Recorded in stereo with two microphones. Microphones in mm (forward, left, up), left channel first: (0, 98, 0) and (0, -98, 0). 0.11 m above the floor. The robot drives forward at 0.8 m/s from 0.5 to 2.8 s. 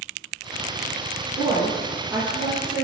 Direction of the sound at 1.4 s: 10° right (ahead or behind).